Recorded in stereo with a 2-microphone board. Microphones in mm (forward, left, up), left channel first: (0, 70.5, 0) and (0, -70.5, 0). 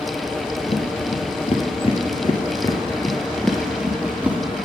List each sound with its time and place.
0.7 s footsteps: 50° left (ahead or behind), 2 m; by 4.4 s 10° right (ahead or behind), 2 m